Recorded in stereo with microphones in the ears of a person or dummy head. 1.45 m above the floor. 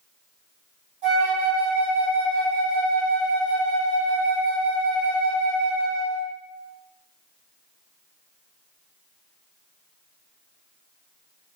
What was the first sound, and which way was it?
A flute, 35° right (ahead or behind).